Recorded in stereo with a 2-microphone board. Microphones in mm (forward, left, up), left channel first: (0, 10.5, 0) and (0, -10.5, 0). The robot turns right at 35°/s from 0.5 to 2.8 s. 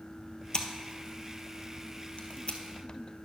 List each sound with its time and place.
0.5 s scissors: 35° left (ahead or behind), 1.1 m; by 2.6 s 55° left (ahead or behind), 1.1 m